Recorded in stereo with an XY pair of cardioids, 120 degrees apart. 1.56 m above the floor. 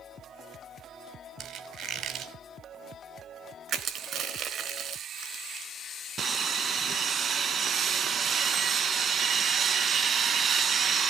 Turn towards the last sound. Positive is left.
turn(degrees=-40)